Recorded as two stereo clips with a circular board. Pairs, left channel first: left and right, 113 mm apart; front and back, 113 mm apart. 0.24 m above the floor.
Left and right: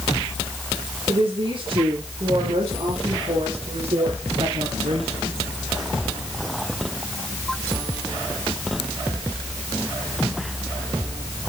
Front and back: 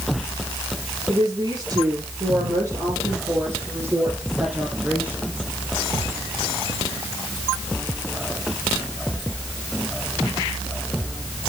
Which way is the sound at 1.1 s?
130° right.